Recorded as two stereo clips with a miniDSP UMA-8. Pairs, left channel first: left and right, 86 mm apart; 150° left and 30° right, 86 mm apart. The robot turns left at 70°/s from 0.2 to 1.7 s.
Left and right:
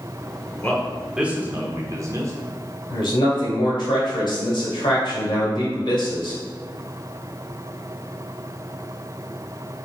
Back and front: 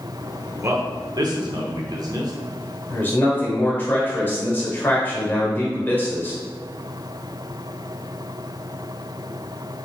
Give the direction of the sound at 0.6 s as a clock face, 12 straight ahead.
11 o'clock.